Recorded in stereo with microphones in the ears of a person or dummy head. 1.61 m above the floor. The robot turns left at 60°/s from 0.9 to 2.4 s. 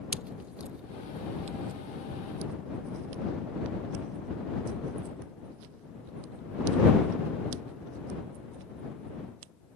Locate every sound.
0.1 s a pop: 5° right (ahead or behind); by 9.5 s 75° right (ahead or behind)